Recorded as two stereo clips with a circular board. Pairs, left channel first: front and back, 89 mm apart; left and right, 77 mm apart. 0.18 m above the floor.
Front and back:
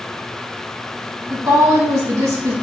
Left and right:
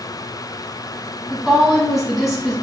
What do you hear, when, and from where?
1.3 s a woman speaking: 175° right, 1.1 m